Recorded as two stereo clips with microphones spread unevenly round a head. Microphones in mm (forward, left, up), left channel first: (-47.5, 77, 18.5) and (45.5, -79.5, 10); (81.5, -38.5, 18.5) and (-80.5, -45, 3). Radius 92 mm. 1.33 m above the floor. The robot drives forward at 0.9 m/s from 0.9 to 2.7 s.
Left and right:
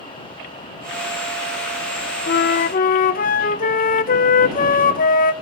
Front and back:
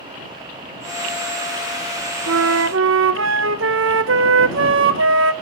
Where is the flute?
160° left, 0.6 m; by 5.3 s 165° left, 0.9 m.